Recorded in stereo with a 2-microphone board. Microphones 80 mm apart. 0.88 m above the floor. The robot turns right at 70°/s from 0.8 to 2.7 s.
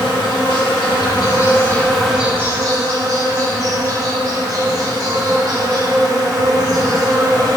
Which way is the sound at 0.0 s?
95° left.